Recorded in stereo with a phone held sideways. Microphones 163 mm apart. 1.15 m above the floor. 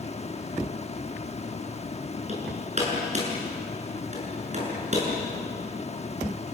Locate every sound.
0.0 s a fan: 40° left (ahead or behind), 1.1 m
2.3 s hammering: 45° right (ahead or behind), 7.5 m